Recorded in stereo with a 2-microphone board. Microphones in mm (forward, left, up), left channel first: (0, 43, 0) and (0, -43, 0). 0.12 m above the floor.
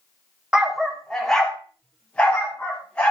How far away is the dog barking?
About 1.6 m.